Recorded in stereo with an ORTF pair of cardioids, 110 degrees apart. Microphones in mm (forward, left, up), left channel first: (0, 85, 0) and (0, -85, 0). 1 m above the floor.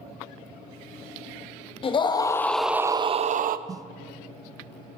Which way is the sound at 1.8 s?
35° left.